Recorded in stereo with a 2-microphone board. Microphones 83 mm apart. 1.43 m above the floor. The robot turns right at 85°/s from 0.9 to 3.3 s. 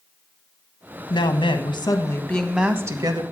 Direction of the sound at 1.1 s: 65° left.